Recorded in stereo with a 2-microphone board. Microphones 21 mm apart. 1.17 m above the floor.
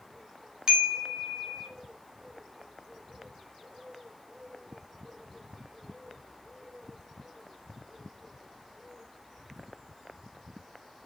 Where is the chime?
45° right (ahead or behind), 1.1 m.